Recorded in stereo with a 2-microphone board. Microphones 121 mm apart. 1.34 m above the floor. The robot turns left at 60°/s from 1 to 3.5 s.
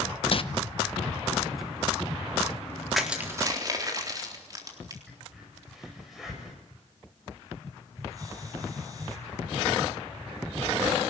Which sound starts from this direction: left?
Crumpling, at 0.3 s.